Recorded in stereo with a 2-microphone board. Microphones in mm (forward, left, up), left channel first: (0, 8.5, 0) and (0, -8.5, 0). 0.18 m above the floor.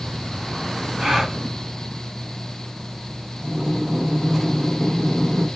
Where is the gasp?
35° right (ahead or behind), 1.8 m.